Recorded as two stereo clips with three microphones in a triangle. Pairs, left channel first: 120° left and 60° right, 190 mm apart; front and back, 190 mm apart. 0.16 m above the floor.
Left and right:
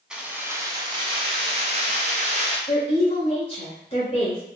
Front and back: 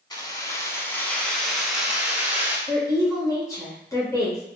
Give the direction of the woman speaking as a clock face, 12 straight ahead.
10 o'clock.